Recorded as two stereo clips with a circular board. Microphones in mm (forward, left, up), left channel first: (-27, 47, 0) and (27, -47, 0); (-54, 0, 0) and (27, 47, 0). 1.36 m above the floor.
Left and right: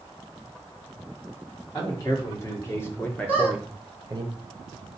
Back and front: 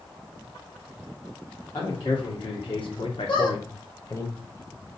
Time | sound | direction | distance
1.7 | a man speaking | 175° left | 1.8 m
3.3 | a squeak | 165° right | 2 m